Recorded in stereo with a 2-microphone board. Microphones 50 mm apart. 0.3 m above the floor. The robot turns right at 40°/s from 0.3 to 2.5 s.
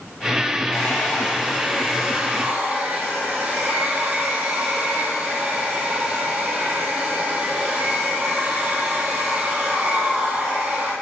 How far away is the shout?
No shout in this recording.